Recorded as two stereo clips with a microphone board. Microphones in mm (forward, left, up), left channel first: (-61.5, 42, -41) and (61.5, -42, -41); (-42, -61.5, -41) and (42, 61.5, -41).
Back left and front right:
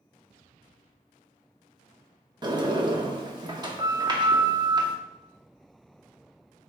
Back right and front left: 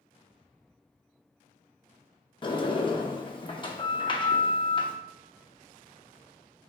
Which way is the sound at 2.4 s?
85° right.